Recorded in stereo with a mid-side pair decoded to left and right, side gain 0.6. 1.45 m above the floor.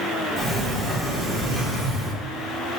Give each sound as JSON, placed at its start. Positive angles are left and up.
{"t": 0.4, "sound": "a sliding door", "azimuth_deg": -25, "distance_m": 1.2}